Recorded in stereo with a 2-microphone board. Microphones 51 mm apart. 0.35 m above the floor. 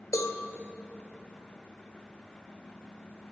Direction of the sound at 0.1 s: 85° left.